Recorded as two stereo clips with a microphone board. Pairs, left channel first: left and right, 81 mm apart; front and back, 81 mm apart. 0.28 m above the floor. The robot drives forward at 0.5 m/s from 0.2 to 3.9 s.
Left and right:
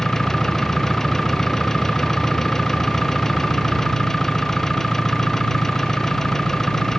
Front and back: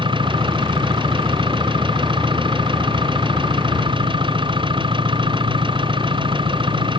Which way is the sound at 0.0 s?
175° left.